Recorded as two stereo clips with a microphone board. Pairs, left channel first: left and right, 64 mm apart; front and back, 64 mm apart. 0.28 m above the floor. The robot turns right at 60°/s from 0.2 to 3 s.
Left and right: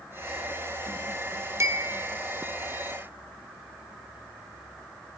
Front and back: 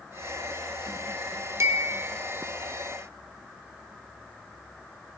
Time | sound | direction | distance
1.6 | a bell | 135° right | 0.9 m